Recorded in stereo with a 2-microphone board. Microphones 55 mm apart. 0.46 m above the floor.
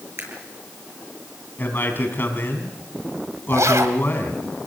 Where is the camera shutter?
60° right (ahead or behind), 7.5 m.